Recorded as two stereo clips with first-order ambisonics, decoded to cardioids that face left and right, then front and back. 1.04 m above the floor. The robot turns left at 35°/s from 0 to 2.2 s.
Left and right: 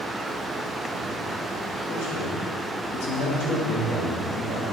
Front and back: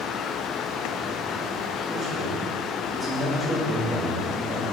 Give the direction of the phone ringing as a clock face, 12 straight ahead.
No phone ringing in this recording.